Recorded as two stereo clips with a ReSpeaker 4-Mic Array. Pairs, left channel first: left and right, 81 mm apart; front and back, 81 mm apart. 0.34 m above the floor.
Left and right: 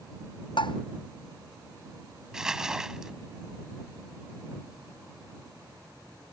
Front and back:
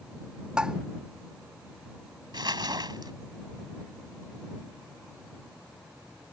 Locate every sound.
0.6 s tapping: 100° left
2.3 s crumpling: 170° right